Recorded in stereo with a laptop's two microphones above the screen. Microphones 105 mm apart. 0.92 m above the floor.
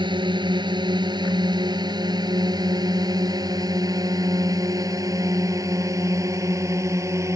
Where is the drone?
50° right (ahead or behind); by 7.4 s 30° right (ahead or behind).